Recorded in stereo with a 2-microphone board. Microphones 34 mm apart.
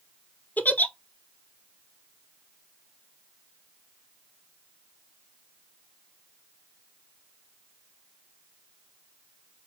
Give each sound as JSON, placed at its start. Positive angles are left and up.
{"t": 0.6, "sound": "a giggle", "side_deg": 55, "distance_m": 0.5}